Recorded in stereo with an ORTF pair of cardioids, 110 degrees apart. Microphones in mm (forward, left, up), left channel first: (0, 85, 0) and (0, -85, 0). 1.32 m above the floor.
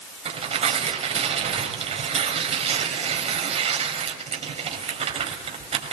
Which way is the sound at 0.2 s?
40° right.